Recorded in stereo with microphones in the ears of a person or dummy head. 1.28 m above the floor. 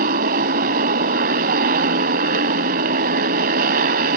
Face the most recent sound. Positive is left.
turn(degrees=-50)  # may be behind; listen again after turning